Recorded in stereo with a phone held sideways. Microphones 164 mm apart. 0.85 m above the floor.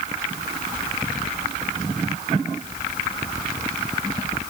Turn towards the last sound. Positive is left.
No sound to turn to.